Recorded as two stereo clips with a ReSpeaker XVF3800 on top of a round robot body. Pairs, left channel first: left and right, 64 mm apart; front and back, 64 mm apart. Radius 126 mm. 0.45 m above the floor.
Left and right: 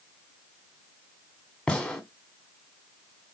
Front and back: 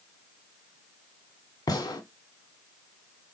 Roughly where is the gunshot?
Ahead.